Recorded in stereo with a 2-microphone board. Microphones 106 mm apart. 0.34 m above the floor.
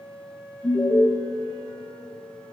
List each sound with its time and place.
0.6 s an alarm: 20° left (ahead or behind), 4.5 m